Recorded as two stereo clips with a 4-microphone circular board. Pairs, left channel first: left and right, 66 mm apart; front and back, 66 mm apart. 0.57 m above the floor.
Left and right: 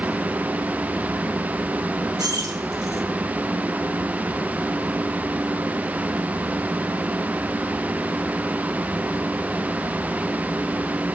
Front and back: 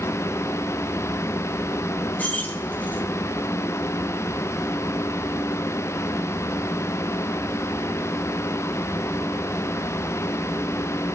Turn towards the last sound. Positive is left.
turn(degrees=-65)